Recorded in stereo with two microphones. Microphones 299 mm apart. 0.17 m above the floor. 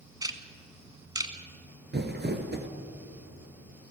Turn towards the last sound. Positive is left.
turn(degrees=-35)  # may be behind; listen again after turning